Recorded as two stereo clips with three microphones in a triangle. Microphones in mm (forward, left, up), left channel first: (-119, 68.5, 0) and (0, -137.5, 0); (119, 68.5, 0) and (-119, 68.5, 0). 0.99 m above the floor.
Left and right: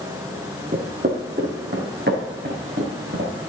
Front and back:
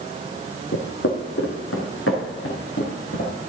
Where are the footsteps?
15° right, 2 m; by 3.3 s 20° right, 5 m.